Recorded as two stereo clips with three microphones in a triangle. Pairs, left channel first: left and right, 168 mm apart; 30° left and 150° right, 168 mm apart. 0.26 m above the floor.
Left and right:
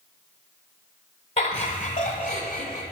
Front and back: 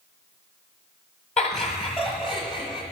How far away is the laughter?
About 1.3 m.